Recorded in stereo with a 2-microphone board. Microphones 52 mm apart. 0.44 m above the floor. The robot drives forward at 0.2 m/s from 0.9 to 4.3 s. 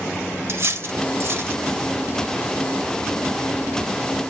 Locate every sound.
0.5 s cutlery clinking: 55° right (ahead or behind), 0.8 m; by 1.6 s 50° right (ahead or behind), 0.9 m